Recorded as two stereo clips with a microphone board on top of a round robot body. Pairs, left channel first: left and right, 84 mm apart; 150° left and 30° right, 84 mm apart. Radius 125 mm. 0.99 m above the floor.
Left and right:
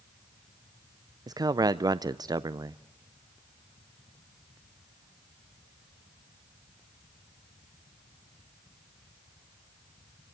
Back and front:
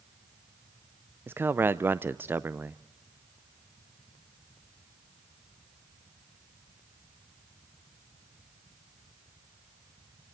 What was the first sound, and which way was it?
A man speaking, 85° right.